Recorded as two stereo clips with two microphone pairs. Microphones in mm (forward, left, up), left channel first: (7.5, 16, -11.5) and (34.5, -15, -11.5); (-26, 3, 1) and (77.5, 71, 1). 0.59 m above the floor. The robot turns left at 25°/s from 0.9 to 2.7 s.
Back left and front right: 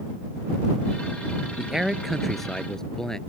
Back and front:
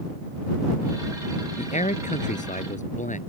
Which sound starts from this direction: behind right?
A man speaking, at 1.6 s.